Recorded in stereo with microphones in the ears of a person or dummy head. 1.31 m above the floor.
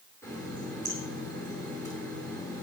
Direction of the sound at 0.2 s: 15° left (ahead or behind).